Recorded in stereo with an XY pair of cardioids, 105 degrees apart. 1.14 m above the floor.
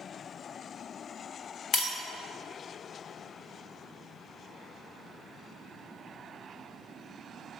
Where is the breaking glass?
60° left, 1.1 m.